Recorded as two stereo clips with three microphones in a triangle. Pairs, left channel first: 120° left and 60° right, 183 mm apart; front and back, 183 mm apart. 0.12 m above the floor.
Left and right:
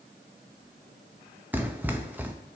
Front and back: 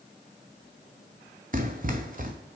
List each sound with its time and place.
1.5 s running footsteps: 140° right, 1.1 m